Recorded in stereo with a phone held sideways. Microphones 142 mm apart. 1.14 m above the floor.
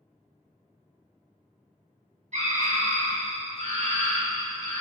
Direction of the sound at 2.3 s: 55° right (ahead or behind).